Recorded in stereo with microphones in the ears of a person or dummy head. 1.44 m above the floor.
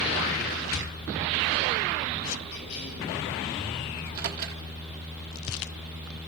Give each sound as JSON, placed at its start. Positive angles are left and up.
{"t": 2.5, "sound": "a cough", "side_deg": 60, "distance_m": 8.0}
{"t": 4.0, "sound": "a microwave", "side_deg": -55, "distance_m": 1.9}